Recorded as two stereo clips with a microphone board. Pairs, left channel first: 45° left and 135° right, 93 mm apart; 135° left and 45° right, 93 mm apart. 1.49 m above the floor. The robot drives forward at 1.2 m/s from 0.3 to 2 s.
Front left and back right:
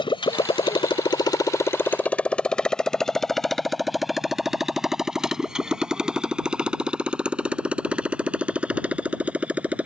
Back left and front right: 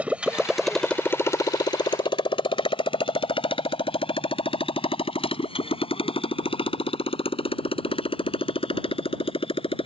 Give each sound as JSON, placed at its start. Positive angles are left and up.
{"t": 0.0, "sound": "a motorcycle", "azimuth_deg": 30}